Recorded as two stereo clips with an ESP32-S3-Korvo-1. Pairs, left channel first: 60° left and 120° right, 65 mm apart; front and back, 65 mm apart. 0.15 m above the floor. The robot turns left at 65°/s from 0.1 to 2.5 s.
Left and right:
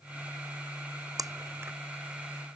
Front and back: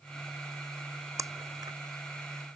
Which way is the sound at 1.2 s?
140° right.